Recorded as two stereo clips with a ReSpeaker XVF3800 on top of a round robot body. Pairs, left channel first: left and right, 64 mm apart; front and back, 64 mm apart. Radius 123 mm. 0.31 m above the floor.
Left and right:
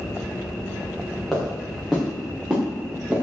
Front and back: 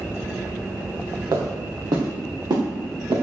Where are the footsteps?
175° left, 6 m; by 3.2 s 160° right, 5.5 m.